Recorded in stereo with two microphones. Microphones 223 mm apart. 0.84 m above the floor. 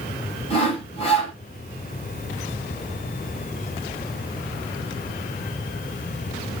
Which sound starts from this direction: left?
Sawing, at 0.5 s.